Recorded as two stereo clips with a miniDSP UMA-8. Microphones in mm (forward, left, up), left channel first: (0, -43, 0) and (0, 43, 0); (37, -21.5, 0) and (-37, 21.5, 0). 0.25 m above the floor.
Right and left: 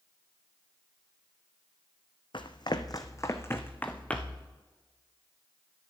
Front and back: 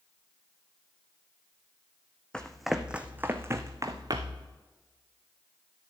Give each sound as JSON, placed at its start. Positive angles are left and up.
{"t": 2.3, "sound": "running footsteps", "azimuth_deg": -110, "distance_m": 1.0}